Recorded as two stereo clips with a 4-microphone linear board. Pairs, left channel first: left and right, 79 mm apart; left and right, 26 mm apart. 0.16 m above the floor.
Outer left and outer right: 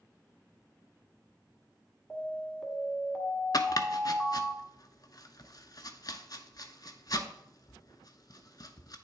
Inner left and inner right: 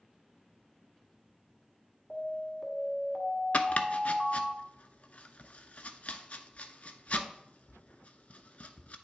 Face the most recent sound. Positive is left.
turn(degrees=55)  # may be behind; listen again after turning